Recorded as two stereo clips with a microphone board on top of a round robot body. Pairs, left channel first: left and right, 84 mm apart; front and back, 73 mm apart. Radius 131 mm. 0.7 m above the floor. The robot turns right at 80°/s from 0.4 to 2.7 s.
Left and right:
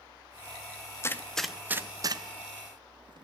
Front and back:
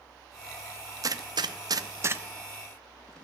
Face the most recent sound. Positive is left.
turn(degrees=-80)